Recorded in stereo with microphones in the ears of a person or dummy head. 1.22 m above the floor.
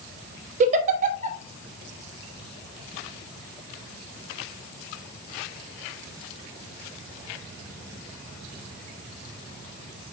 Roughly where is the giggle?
Right.